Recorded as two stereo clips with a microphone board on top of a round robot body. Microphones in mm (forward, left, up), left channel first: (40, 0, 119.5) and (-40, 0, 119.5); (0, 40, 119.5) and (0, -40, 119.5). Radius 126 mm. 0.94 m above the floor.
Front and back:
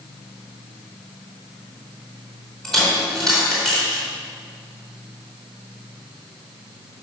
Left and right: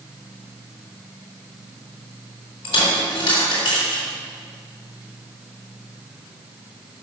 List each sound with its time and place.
2.6 s a dropped coin: 85° left, 4 m